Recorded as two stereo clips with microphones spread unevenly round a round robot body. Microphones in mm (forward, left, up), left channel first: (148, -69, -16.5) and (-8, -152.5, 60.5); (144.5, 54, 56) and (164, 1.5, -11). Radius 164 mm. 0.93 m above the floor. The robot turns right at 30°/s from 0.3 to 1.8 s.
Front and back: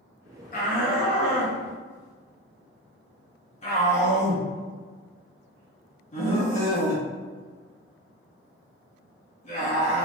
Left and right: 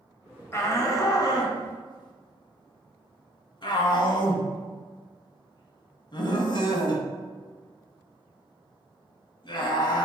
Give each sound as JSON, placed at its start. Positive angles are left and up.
{"t": 0.5, "sound": "a shout", "azimuth_deg": 25, "distance_m": 1.3}